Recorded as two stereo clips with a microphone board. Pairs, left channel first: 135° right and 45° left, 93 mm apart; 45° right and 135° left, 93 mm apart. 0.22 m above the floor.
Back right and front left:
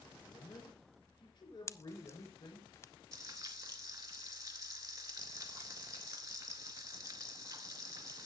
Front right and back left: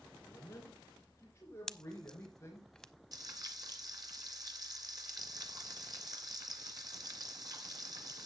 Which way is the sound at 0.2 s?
105° right.